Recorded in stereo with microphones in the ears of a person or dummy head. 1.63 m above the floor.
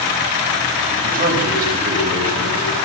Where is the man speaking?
50° right (ahead or behind), 9.5 m.